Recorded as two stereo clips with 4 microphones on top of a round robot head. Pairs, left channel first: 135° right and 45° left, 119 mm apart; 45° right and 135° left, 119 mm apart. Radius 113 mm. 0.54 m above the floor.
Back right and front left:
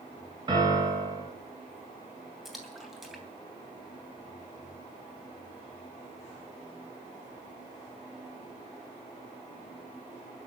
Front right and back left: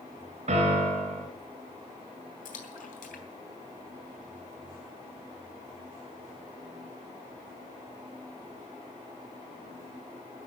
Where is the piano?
100° left, 4 m.